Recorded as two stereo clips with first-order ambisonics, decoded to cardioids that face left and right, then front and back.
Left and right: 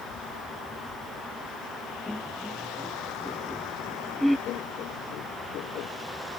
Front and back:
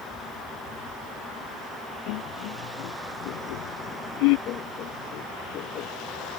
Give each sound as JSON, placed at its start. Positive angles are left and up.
{"t": 2.1, "sound": "laughter", "azimuth_deg": 5}
{"t": 4.5, "sound": "laughter", "azimuth_deg": 45}